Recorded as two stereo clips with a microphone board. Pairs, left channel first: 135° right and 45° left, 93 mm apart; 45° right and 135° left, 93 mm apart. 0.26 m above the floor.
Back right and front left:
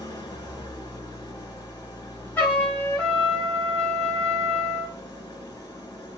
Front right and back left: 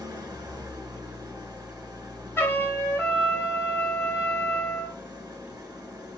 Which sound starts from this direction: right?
A trumpet, at 2.4 s.